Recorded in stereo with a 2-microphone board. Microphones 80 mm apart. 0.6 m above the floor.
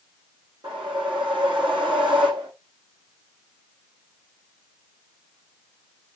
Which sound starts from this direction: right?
A whoosh, at 0.6 s.